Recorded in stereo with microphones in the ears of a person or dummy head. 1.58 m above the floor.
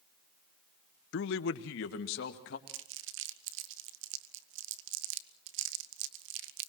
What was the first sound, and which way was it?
A man speaking, 75° left (ahead or behind).